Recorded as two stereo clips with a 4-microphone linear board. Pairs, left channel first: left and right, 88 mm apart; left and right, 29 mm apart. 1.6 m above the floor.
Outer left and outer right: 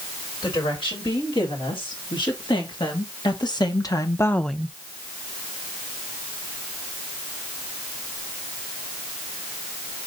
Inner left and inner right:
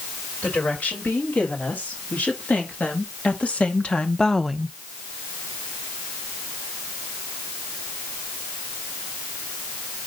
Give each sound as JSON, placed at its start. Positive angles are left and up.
{"t": 0.4, "sound": "a woman speaking", "side_deg": 70, "distance_m": 5.0}